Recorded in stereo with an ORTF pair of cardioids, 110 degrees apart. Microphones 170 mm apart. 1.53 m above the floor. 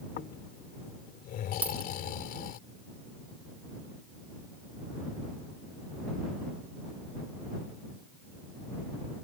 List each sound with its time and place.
0.2 s snoring: 65° left
1.6 s a dropped coin: 10° right